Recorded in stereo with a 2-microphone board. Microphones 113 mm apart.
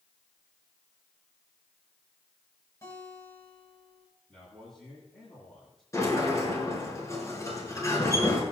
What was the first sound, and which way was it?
A guitar, 25° left (ahead or behind).